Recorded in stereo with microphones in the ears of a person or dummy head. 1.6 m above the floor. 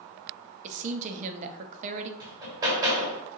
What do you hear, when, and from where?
0.6 s a woman speaking: 40° right (ahead or behind), 0.5 m
2.2 s hammering: 20° right (ahead or behind), 0.9 m